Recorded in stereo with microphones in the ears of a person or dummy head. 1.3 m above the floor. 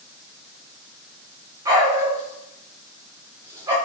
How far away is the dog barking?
About 1.2 m.